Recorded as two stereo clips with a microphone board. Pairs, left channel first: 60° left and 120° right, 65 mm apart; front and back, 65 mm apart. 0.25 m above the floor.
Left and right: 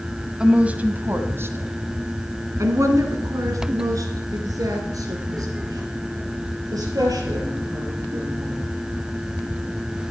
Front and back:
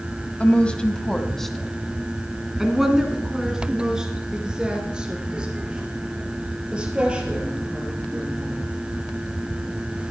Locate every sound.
0.4 s a woman speaking: 50° right, 1.1 m; by 8.6 s 105° right, 5.5 m